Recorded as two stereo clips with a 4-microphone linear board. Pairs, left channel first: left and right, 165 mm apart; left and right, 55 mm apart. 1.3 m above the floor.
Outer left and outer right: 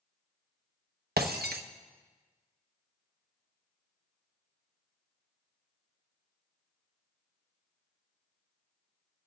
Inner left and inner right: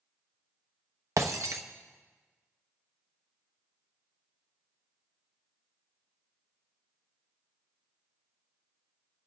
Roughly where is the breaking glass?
Right.